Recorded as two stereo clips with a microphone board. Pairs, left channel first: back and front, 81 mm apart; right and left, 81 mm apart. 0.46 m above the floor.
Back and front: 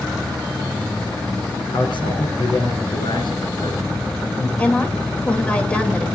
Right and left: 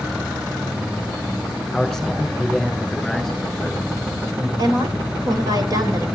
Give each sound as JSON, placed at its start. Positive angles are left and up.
{"t": 1.7, "sound": "a man speaking", "azimuth_deg": -175, "distance_m": 5.0}
{"t": 4.6, "sound": "a woman speaking", "azimuth_deg": 110, "distance_m": 2.0}